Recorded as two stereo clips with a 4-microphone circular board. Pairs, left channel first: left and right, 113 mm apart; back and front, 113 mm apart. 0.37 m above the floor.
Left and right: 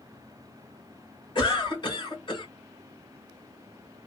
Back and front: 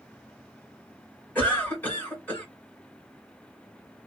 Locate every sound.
1.4 s a cough: 110° left, 2.0 m